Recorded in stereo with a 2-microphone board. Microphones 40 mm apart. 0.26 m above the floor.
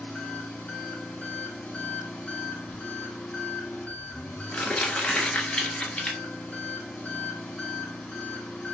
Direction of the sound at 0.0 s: 45° left (ahead or behind).